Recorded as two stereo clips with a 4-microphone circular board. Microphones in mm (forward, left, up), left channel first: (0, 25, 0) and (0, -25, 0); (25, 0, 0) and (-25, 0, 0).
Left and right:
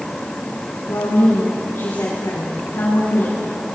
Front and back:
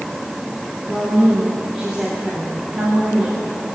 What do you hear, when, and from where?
0.9 s a woman speaking: 100° left, 9.5 m